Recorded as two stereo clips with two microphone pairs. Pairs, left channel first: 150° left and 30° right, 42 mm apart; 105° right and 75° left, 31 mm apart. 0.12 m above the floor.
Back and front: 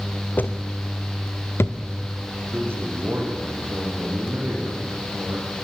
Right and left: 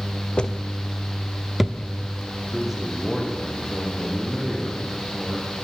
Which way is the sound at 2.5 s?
Straight ahead.